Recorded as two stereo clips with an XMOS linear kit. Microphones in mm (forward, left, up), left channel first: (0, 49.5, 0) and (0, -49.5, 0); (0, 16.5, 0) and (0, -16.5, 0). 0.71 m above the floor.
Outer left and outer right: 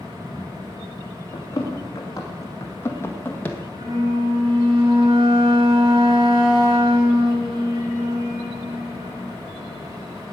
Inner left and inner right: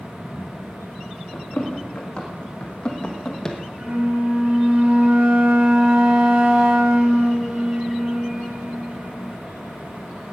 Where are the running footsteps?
35° left (ahead or behind), 3 m; by 3.6 s 10° left (ahead or behind), 1.4 m.